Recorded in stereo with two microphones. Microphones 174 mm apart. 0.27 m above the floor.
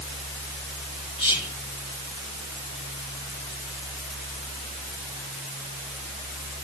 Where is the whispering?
30° left (ahead or behind), 5 m.